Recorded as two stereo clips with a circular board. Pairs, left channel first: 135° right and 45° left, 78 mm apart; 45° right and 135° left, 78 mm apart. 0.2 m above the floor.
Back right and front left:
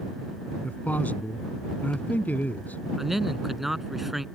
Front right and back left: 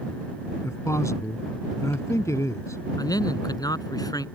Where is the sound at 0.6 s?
75° right.